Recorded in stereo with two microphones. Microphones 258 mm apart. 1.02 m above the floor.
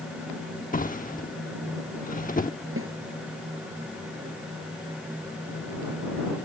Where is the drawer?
30° left (ahead or behind).